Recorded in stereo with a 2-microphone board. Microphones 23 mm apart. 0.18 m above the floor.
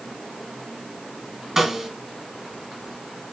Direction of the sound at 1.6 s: 15° right (ahead or behind).